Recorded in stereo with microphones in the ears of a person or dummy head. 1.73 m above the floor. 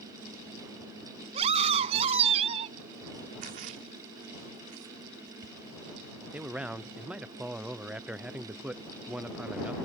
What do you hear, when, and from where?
1.3 s a scream: 40° right (ahead or behind)
3.4 s a splash: 55° right (ahead or behind)
6.3 s a man speaking: 5° right (ahead or behind)